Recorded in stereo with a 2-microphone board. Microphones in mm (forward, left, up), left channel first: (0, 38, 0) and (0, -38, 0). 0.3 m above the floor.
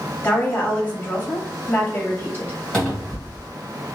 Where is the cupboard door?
5° left (ahead or behind), 1.4 m.